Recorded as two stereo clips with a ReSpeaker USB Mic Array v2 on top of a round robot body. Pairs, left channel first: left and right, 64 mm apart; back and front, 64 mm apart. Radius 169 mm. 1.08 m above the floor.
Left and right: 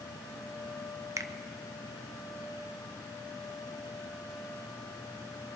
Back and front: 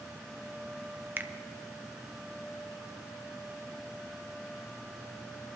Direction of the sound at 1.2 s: 60° right.